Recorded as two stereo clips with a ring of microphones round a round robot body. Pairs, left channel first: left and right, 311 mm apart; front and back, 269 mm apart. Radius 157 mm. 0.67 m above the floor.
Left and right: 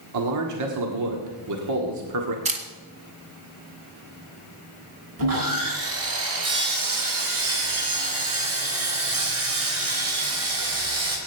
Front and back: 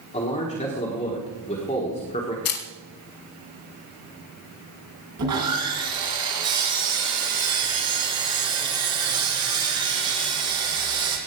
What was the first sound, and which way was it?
A man speaking, 65° right.